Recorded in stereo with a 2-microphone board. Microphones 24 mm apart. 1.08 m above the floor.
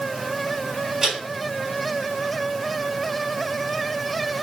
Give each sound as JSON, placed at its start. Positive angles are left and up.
{"t": 1.0, "sound": "a man speaking", "side_deg": -10, "distance_m": 2.5}